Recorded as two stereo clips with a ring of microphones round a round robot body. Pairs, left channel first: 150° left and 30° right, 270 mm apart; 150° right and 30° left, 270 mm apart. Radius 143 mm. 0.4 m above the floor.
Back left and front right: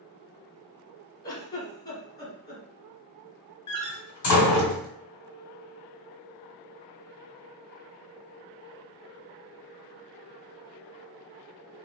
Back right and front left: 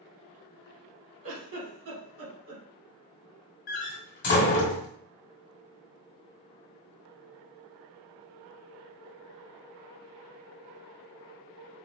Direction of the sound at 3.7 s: 165° left.